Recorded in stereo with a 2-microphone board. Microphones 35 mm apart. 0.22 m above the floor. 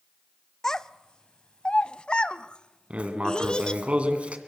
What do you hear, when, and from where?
0.6 s a child speaking: 15° left (ahead or behind), 0.6 m; by 3.8 s 25° left (ahead or behind), 1.5 m
2.9 s writing: 35° right (ahead or behind), 2 m